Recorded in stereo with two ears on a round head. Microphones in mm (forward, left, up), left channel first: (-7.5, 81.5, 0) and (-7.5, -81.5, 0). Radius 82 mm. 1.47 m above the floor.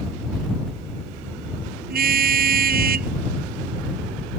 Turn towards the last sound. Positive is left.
turn(degrees=-55)  # may be behind; listen again after turning